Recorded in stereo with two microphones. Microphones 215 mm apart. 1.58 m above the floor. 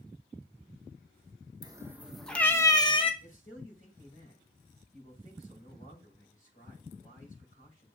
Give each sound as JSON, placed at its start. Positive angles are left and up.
{"t": 1.6, "sound": "a cat meowing", "side_deg": -20, "distance_m": 0.8}
{"t": 3.2, "sound": "a man speaking", "side_deg": 35, "distance_m": 6.0}